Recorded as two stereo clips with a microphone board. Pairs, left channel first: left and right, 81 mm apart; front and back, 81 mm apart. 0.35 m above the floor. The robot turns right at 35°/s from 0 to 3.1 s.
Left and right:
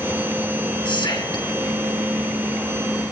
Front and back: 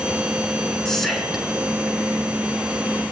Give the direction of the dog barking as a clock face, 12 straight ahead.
I don't hear a dog barking.